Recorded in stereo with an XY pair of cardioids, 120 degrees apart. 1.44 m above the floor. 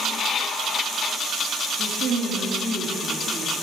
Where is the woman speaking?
60° right, 3 m; by 3.6 s 40° right, 4 m.